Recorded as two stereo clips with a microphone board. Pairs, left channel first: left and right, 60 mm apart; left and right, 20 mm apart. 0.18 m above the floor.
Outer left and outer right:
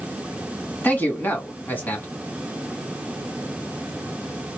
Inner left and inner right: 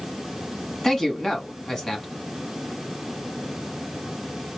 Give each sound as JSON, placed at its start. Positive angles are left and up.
{"t": 0.8, "sound": "a man speaking", "side_deg": 30, "distance_m": 1.5}